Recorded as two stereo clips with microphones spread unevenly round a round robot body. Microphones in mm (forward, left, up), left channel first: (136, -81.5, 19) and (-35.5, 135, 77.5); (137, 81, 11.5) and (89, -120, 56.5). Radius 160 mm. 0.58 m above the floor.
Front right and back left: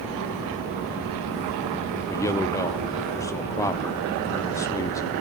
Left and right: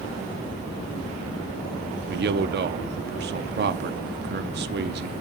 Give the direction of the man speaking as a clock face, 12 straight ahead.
3 o'clock.